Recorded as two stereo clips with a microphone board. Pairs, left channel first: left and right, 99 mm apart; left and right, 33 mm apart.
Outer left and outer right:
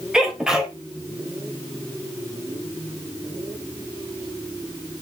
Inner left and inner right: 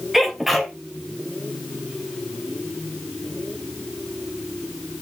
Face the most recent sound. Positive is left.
turn(degrees=-5)  # may be behind; listen again after turning